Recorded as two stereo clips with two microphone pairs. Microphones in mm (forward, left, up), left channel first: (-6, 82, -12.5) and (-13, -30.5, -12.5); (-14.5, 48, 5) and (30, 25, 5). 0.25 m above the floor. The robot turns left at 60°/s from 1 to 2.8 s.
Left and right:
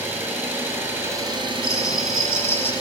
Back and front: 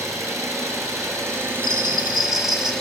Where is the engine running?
20° right, 1.9 m; by 2.8 s 130° right, 1.9 m.